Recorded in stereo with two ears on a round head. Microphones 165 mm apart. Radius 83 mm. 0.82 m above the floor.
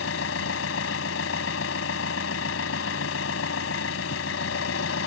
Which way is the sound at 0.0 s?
80° left.